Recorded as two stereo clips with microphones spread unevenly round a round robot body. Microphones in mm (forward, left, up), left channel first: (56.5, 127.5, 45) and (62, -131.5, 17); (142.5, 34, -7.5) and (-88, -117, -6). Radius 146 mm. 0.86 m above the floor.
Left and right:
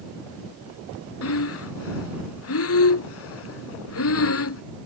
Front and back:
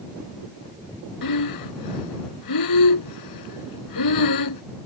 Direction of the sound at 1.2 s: 60° left.